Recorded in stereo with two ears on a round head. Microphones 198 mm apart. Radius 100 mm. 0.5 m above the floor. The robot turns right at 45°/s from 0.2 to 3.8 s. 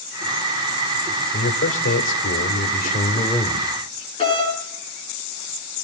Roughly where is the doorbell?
Left.